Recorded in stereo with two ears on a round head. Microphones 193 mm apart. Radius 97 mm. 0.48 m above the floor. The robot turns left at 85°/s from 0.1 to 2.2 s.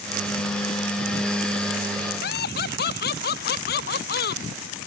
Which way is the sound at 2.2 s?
50° left (ahead or behind).